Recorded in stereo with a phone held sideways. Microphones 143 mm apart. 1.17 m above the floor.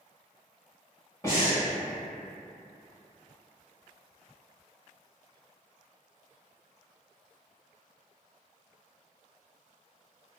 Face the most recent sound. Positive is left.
turn(degrees=20)  # may be behind; listen again after turning